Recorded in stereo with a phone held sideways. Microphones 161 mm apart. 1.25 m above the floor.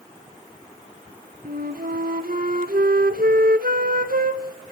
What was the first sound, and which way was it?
A flute, 70° right (ahead or behind).